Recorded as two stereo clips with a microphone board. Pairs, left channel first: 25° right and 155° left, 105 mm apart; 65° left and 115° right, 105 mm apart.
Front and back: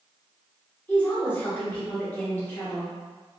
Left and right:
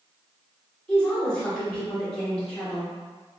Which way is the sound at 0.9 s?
5° left.